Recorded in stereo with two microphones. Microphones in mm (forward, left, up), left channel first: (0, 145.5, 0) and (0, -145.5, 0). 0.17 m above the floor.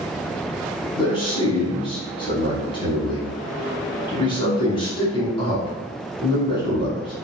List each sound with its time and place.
1.0 s a man speaking: 20° left (ahead or behind), 1.0 m